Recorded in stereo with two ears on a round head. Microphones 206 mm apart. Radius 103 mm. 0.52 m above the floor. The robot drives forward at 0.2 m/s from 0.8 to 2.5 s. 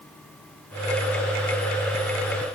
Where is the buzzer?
No buzzer in this recording.